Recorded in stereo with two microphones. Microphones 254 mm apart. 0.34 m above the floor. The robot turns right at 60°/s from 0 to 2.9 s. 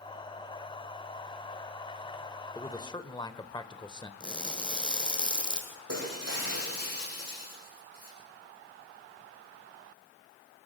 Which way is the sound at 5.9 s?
80° right.